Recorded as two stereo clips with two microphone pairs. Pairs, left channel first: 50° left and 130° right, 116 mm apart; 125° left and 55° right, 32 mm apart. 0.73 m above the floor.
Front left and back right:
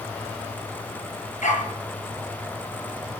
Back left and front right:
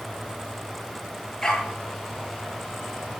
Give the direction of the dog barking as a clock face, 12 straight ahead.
10 o'clock.